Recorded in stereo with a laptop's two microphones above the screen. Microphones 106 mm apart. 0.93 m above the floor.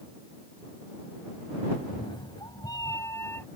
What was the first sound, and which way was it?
A cat meowing, 50° left (ahead or behind).